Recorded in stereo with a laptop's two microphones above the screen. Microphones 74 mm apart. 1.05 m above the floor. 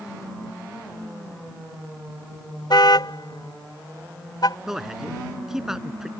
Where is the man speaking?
5° right (ahead or behind).